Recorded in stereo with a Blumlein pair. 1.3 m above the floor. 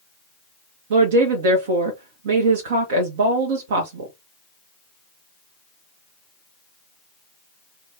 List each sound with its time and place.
0.9 s a woman speaking: 55° right, 1.1 m